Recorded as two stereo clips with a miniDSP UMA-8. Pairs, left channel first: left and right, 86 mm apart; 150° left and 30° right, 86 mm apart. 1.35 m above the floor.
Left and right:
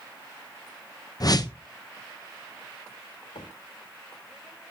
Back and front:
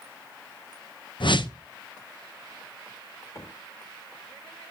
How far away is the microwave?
About 6 m.